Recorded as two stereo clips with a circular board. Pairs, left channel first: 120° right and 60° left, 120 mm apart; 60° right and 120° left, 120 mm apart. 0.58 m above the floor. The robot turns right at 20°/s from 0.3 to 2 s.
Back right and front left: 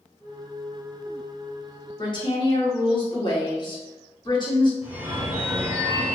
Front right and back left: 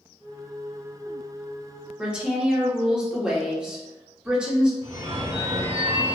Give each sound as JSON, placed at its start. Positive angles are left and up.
{"t": 2.0, "sound": "a woman speaking", "azimuth_deg": -160, "distance_m": 1.2}
{"t": 4.8, "sound": "a phone ringing", "azimuth_deg": 135, "distance_m": 1.3}